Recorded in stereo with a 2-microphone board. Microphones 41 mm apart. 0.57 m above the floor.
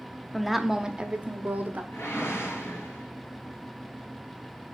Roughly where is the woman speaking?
Centre.